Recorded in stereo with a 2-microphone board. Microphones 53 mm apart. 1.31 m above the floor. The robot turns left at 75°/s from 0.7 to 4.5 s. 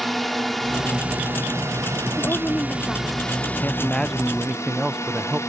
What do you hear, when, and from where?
0.0 s a drone: straight ahead; by 5.5 s 75° left
2.2 s a woman speaking: 75° left; by 3.2 s 5° right
3.6 s a man speaking: 45° left; by 5.4 s 20° right